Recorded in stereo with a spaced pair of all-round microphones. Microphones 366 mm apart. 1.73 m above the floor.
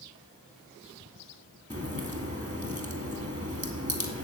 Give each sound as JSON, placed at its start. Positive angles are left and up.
{"t": 1.7, "sound": "a crack", "side_deg": -20, "distance_m": 2.5}